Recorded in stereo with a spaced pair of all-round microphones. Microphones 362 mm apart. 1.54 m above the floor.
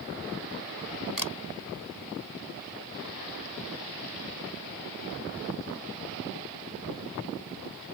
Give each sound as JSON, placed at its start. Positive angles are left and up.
{"t": 1.2, "sound": "a camera shutter", "side_deg": -65}